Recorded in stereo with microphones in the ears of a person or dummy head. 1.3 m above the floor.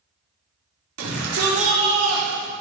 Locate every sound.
1.0 s a shout: 80° right, 4 m; by 2.5 s 75° right (ahead or behind), 4.5 m